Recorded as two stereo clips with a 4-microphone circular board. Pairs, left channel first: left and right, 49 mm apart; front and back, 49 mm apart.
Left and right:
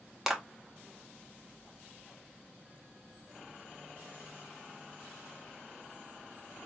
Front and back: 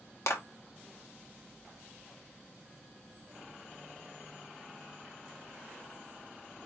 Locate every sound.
0.3 s a clap: 10° right, 1.1 m